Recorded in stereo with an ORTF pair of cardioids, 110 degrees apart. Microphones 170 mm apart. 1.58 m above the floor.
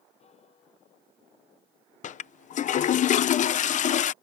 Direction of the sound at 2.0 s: 50° left.